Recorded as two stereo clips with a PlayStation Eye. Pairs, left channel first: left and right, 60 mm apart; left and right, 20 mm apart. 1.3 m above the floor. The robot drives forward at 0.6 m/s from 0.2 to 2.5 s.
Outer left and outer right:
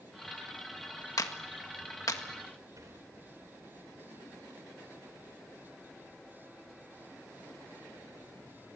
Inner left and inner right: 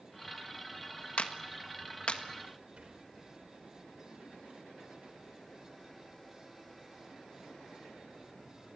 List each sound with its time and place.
1.2 s a clap: 85° left, 1.7 m; by 2.2 s 70° left (ahead or behind), 1.8 m
2.8 s a sliding door: 70° right (ahead or behind), 4.5 m